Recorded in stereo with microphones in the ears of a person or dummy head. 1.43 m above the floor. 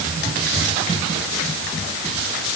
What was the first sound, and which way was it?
Only background noise.